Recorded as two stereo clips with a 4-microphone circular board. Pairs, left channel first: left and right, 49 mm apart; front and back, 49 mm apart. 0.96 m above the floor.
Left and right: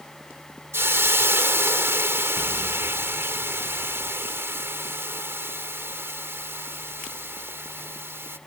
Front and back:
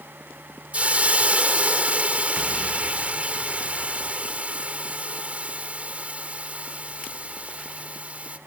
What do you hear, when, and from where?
0.7 s a hiss: 120° right